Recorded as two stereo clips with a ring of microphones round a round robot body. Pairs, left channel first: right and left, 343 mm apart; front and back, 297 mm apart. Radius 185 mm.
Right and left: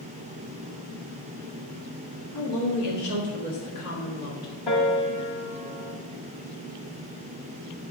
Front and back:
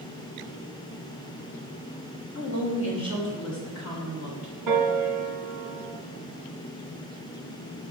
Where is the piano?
160° right, 1.0 m.